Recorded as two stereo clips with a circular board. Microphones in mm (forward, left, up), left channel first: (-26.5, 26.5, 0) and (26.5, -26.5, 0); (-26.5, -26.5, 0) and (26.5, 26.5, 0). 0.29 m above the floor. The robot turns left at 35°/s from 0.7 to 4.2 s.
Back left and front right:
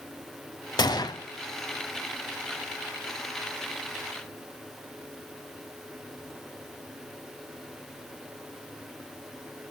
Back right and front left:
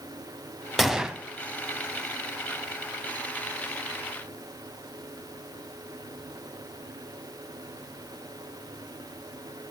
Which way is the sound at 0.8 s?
135° left.